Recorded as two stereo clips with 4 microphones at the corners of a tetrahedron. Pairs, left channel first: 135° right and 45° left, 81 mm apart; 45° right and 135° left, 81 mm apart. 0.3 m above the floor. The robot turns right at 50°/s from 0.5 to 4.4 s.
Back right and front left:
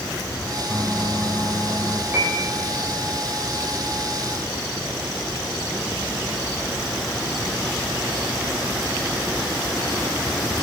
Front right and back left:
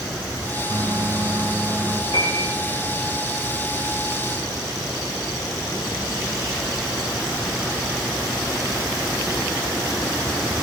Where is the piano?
25° right, 9 m; by 2.5 s 5° right, 9 m.